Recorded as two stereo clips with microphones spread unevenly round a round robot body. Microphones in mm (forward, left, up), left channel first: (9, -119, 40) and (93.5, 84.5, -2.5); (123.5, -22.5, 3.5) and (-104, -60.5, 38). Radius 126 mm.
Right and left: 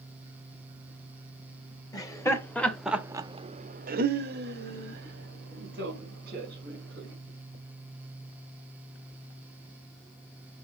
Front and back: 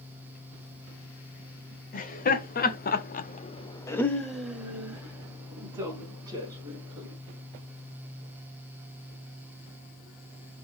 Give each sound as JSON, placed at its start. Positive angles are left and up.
{"t": 1.9, "sound": "laughter", "azimuth_deg": -35, "distance_m": 2.0}